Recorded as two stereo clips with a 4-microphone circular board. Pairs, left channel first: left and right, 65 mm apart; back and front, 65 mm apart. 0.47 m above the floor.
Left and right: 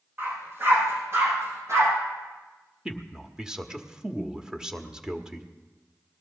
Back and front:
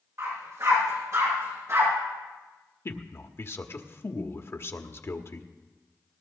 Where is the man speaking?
165° right, 1.1 m.